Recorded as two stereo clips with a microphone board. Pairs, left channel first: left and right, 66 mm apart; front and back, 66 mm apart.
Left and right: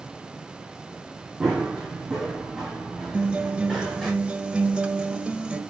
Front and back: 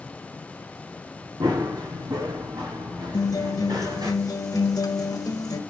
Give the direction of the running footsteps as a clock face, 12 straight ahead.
6 o'clock.